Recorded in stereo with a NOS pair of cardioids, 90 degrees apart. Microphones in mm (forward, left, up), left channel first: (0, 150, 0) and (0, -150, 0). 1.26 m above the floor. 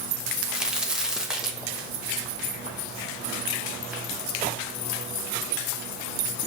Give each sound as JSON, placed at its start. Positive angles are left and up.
{"t": 0.3, "sound": "a crack", "azimuth_deg": 0, "distance_m": 0.8}